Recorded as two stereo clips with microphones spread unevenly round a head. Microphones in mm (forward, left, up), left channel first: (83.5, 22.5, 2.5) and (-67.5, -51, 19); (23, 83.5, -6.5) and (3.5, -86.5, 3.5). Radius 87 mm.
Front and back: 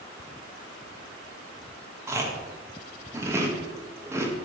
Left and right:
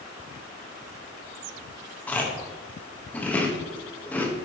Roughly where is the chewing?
Behind.